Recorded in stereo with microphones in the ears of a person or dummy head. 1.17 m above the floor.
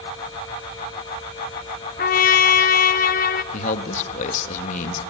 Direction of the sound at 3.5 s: 40° left (ahead or behind).